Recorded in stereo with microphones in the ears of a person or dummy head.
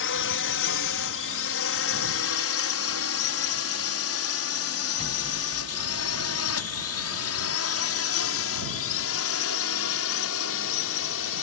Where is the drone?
60° left (ahead or behind); by 11.4 s 70° left (ahead or behind).